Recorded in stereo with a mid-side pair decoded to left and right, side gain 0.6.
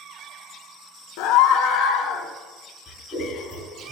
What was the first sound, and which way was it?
A scream, 70° left.